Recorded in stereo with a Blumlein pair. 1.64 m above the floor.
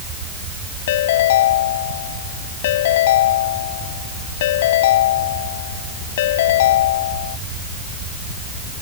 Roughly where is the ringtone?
Ahead left.